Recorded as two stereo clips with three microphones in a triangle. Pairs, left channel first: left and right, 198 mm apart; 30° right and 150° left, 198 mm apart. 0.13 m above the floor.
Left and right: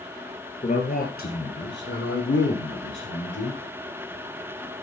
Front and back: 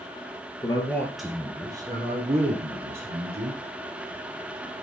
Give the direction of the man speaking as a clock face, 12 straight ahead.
11 o'clock.